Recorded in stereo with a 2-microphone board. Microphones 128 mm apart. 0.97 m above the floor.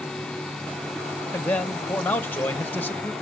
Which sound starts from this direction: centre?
A man speaking, at 1.3 s.